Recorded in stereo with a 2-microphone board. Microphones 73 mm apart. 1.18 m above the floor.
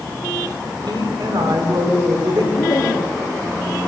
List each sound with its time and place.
0.9 s a woman speaking: 85° right, 4.5 m
2.6 s laughter: 60° left (ahead or behind), 2.5 m